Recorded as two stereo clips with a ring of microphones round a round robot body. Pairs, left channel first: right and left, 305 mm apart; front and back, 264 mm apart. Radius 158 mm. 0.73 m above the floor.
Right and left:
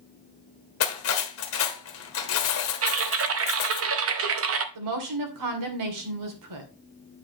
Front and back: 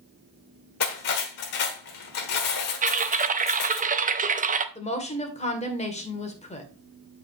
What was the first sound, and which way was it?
Cutlery clinking, 45° right.